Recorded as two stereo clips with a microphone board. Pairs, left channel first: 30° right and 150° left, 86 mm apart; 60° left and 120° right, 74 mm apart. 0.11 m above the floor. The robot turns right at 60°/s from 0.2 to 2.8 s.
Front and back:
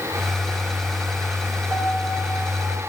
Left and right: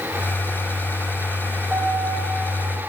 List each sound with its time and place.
1.7 s a piano: 170° left, 2.5 m; by 2.8 s 125° right, 2.5 m